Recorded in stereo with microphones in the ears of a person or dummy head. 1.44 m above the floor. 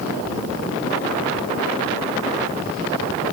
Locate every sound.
Only background noise.